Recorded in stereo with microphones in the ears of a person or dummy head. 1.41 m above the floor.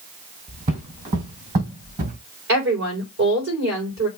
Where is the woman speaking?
65° right (ahead or behind), 5 m.